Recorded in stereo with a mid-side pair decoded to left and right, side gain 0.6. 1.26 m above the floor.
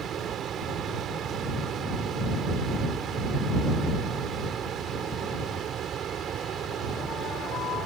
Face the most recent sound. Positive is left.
turn(degrees=-45)